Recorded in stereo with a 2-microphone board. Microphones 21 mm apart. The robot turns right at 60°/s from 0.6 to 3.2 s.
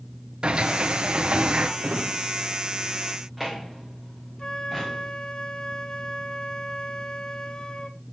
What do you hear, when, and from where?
0.4 s a sliding door: 125° right, 1.8 m; by 1.7 s 55° right, 1.8 m
1.8 s a drawer: 85° right, 3.5 m; by 5.1 s 5° right (ahead or behind), 3.5 m
4.4 s a flute: 35° left (ahead or behind), 1.8 m